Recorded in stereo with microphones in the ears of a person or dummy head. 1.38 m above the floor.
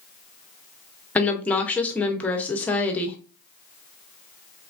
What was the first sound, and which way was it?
A woman speaking, 10° left (ahead or behind).